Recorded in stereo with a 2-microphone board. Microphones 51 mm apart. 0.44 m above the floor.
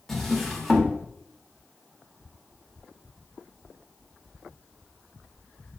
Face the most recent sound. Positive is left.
turn(degrees=5)  # may be behind; listen again after turning